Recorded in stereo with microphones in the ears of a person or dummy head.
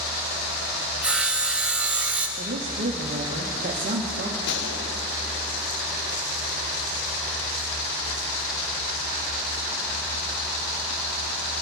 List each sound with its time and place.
1.0 s sawing: 10° right (ahead or behind), 1.4 m
2.4 s a woman speaking: 40° right (ahead or behind), 1.6 m
4.5 s a gunshot: 60° left (ahead or behind), 1.2 m